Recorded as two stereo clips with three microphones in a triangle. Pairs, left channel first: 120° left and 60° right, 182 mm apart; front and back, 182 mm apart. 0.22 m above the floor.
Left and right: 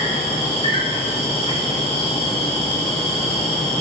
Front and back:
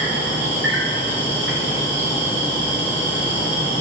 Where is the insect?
Straight behind, 3 m.